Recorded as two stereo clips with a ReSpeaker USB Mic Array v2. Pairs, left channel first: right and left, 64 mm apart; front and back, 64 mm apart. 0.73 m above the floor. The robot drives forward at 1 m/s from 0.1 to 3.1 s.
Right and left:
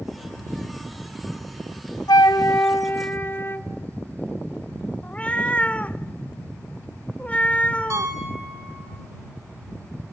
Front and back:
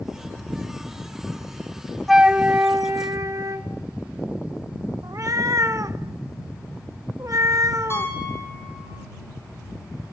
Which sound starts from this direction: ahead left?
A piano, at 7.9 s.